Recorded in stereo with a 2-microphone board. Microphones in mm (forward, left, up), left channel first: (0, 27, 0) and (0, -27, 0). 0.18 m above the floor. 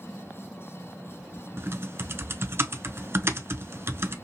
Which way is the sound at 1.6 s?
45° right (ahead or behind).